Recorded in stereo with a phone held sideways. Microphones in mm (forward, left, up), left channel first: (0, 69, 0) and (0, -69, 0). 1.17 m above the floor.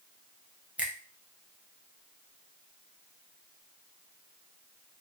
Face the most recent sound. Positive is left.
turn(degrees=-10)  # may be behind; listen again after turning